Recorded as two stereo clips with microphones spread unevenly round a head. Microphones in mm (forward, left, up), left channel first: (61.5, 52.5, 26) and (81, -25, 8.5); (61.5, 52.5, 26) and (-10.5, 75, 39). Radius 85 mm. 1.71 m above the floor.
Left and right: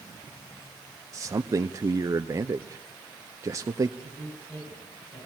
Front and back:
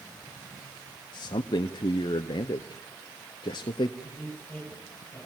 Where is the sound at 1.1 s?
25° right, 0.6 m.